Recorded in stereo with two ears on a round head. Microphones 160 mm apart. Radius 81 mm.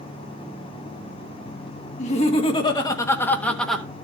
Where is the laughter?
40° left (ahead or behind), 1.3 m; by 3.9 s centre (ahead or behind), 1.4 m.